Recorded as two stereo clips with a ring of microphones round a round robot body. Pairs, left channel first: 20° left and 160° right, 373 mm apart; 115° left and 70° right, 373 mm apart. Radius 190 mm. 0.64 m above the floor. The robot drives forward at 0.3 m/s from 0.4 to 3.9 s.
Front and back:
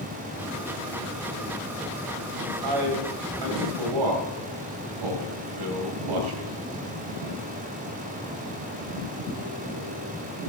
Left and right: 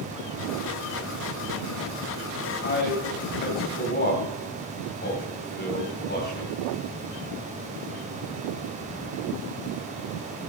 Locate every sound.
2.6 s a man speaking: 175° left, 3 m; by 6.6 s straight behind, 3.5 m